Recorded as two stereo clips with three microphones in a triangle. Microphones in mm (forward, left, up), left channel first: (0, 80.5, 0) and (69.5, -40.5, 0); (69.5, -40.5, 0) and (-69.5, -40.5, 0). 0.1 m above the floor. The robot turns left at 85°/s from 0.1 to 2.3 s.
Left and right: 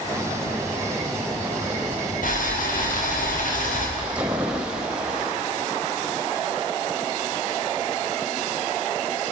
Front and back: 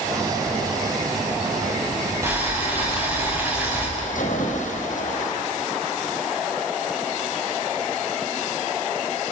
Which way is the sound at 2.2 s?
110° left.